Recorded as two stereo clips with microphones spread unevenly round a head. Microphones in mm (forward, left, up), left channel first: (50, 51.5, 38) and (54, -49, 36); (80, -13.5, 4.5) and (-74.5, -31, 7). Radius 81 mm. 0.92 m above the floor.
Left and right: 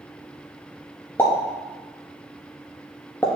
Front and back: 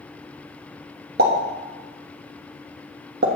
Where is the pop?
165° left, 1.3 m.